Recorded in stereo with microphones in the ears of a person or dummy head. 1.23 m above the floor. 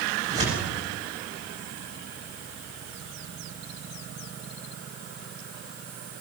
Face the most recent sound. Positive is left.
turn(degrees=-40)  # may be behind; listen again after turning